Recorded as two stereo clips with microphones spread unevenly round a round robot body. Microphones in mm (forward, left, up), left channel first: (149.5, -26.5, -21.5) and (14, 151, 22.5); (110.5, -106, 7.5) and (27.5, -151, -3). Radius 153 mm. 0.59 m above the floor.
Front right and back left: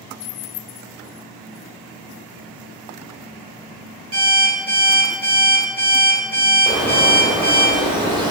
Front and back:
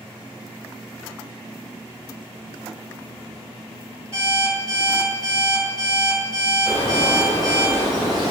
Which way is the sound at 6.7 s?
50° left.